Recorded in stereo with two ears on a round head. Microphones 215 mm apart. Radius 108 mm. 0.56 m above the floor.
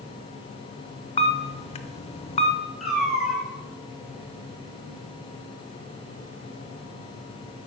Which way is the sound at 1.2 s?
25° left (ahead or behind).